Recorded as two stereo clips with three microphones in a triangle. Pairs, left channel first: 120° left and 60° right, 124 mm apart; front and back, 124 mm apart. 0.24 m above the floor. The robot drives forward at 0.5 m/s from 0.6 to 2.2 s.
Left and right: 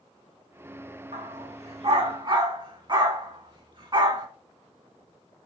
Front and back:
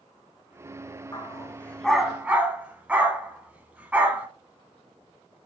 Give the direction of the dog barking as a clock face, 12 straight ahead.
2 o'clock.